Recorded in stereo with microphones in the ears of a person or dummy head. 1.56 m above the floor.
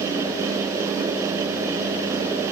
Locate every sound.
Only background noise.